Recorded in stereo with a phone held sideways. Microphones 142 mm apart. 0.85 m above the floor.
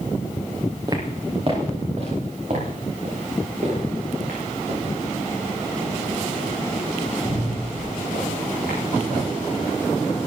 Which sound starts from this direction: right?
Footsteps, at 0.9 s.